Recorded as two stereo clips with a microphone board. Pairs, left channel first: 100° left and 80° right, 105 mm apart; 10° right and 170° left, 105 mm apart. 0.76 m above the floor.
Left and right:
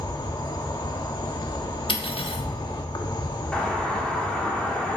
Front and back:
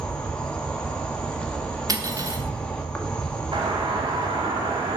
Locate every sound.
0.0 s an insect: 70° left, 1.2 m
1.9 s cutlery clinking: 120° left, 1.1 m
3.5 s a doorbell: straight behind, 2 m